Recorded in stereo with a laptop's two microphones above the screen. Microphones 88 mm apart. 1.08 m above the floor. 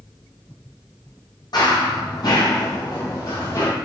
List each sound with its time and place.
1.5 s running footsteps: 55° left (ahead or behind), 2.0 m; by 3.7 s 40° left (ahead or behind), 1.7 m